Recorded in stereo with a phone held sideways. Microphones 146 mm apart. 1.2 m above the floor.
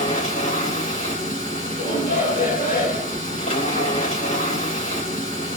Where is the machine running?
85° left, 2.5 m.